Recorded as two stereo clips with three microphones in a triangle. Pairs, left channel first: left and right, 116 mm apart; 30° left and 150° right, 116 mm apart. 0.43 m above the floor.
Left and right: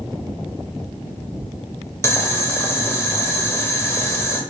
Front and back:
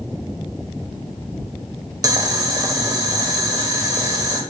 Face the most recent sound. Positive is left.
turn(degrees=155)